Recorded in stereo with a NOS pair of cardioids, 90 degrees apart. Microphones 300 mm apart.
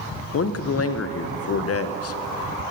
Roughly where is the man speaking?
Ahead left.